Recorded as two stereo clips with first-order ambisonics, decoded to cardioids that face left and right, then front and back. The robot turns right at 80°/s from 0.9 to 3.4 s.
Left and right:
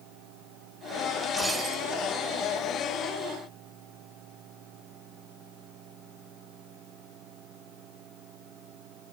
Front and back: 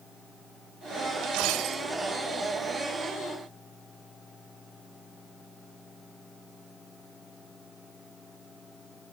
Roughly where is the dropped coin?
Behind.